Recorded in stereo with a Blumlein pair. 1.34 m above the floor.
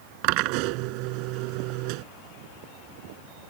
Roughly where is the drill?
Ahead right.